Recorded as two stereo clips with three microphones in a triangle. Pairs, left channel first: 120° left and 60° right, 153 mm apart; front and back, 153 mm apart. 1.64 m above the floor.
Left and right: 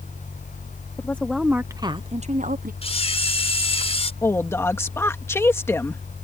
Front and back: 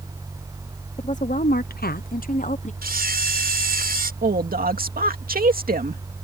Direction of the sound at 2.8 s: 170° left.